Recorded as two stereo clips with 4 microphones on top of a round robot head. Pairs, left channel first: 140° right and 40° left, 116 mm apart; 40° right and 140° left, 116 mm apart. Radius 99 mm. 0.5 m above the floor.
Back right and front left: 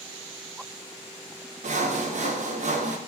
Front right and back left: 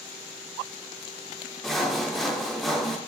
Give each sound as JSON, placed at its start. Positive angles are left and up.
{"t": 1.6, "sound": "sawing", "azimuth_deg": 45, "distance_m": 0.5}